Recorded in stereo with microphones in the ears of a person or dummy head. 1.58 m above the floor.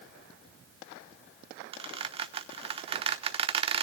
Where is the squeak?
30° right (ahead or behind), 1.0 m.